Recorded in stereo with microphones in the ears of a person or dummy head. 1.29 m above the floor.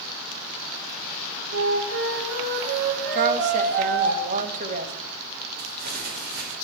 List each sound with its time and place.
1.5 s a flute: 75° right (ahead or behind), 3 m
3.1 s a woman speaking: 45° right (ahead or behind), 2.5 m
5.6 s crumpling: 60° right (ahead or behind), 5 m